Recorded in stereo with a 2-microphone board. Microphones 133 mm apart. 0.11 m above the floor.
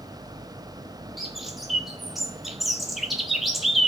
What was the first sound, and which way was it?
A bird, centre (ahead or behind).